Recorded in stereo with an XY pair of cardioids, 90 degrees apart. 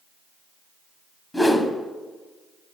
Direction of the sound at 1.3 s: 10° left.